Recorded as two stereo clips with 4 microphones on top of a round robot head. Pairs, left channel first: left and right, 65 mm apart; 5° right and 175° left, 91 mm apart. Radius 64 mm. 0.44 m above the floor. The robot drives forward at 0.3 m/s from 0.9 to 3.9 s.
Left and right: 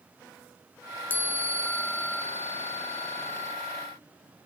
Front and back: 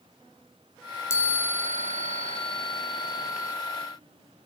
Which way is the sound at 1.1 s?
40° left.